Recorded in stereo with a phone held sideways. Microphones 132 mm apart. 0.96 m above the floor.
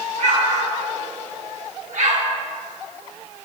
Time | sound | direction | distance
0.2 | an explosion | 65° right (ahead or behind) | 1.1 m